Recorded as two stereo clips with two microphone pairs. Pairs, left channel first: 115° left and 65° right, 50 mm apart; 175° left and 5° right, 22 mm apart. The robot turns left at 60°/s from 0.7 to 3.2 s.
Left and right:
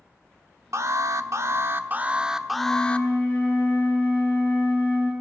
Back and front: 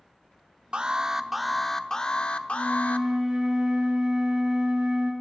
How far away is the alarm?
About 0.8 m.